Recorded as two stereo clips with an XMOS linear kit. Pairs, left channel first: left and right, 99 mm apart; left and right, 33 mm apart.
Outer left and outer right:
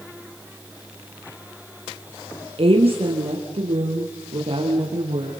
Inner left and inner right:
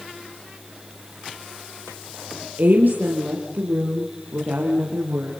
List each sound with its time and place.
2.6 s a woman speaking: 60° right (ahead or behind), 3 m; by 5.3 s 75° right (ahead or behind), 5.5 m